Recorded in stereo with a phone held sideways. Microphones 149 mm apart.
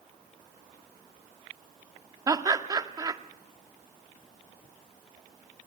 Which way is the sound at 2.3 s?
25° right (ahead or behind).